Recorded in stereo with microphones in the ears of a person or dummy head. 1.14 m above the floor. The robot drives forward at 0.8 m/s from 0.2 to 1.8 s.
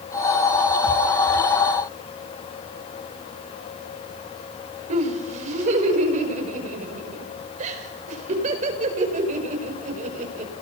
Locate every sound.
4.9 s laughter: 40° right (ahead or behind), 5.5 m